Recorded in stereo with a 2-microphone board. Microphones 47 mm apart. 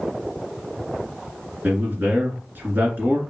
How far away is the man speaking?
About 2 m.